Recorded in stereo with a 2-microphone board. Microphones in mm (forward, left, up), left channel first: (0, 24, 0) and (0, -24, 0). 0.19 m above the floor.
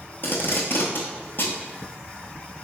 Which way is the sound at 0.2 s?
55° left (ahead or behind).